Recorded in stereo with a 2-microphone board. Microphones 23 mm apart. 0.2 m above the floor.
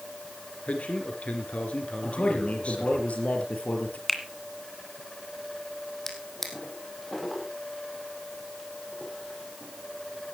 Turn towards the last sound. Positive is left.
turn(degrees=10)  # may be behind; listen again after turning